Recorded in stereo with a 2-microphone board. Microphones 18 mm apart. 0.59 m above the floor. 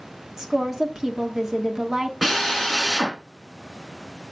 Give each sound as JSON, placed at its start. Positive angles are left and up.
{"t": 0.4, "sound": "a woman speaking", "side_deg": -25, "distance_m": 1.3}
{"t": 2.2, "sound": "a drill", "side_deg": -10, "distance_m": 3.5}